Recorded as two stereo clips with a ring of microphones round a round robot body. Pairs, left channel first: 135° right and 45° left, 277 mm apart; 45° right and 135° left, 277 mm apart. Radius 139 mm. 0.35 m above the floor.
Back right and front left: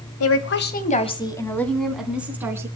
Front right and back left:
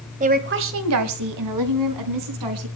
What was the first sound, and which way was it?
A woman speaking, 165° right.